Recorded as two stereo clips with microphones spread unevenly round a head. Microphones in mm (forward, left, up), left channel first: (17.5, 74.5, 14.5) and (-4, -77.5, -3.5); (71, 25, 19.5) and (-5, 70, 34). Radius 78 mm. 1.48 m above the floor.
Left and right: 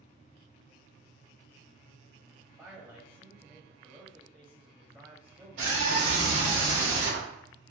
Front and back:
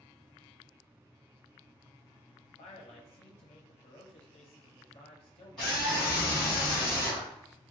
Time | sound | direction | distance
2.6 | a man speaking | 15° right | 0.7 m
5.6 | a scream | 115° right | 2.0 m